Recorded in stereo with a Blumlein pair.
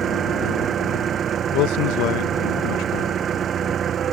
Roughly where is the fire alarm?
No fire alarm in this recording.